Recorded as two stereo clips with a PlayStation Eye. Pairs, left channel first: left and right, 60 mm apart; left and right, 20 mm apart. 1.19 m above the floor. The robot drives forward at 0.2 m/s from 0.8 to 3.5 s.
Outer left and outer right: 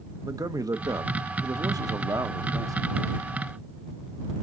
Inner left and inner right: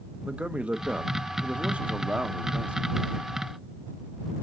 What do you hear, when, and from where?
0.2 s a man speaking: 80° right, 0.9 m; by 3.2 s 70° right (ahead or behind), 0.9 m